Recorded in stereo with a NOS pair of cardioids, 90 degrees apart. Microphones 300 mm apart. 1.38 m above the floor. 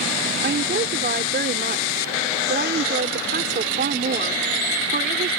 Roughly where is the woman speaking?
Ahead right.